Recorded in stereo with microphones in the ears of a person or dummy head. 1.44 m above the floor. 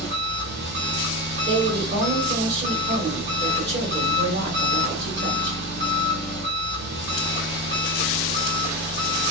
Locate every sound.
0.0 s an engine running: 55° right (ahead or behind), 1.8 m
1.4 s a woman speaking: 40° right (ahead or behind), 1.9 m